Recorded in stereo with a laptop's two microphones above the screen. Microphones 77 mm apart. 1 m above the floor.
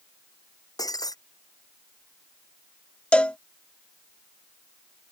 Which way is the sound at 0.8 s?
55° left (ahead or behind).